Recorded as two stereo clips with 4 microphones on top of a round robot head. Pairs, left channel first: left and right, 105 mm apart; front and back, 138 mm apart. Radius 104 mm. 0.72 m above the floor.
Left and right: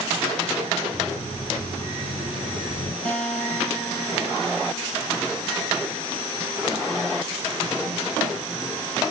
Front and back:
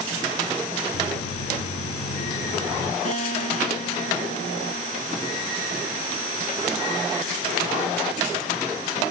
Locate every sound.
0.9 s footsteps: 10° left, 2.5 m; by 3.0 s 25° left, 1.7 m
3.0 s a guitar: 35° left, 2.5 m